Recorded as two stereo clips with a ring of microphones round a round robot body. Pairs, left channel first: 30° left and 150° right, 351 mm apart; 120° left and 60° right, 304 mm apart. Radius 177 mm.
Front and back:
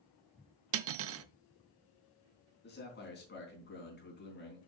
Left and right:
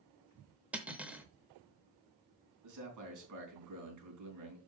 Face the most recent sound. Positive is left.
turn(degrees=-35)